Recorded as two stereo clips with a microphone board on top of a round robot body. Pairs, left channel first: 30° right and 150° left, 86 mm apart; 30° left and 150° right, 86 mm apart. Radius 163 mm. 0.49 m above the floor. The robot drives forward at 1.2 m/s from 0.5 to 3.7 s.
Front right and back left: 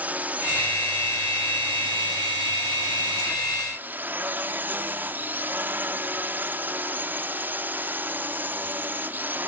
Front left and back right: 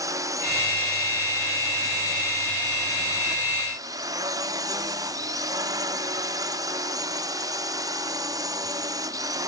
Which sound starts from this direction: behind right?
A drone, at 0.0 s.